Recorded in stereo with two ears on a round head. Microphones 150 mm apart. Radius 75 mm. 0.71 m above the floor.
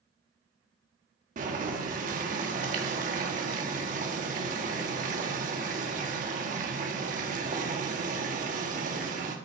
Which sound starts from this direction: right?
Boiling, at 1.4 s.